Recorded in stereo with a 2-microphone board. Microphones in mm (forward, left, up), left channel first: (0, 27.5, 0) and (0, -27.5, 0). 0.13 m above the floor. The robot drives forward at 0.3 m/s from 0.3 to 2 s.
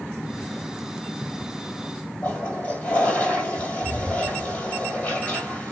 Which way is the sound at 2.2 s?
35° left (ahead or behind).